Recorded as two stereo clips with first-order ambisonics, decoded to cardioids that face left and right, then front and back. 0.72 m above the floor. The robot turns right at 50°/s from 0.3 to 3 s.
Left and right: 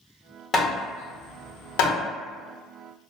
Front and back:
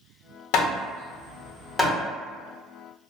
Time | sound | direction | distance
0.5 | hammering | 20° left | 0.7 m